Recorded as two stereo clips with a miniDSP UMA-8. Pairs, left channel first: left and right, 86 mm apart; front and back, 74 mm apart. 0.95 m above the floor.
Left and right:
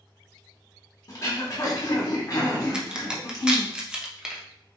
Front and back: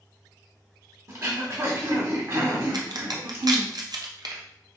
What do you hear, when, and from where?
1.1 s throat clearing: 135° left, 1.0 m
2.7 s a crack: 170° right, 0.5 m